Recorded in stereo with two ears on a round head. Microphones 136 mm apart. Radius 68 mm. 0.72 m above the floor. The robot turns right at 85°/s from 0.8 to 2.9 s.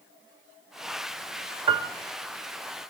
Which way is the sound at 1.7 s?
30° right (ahead or behind).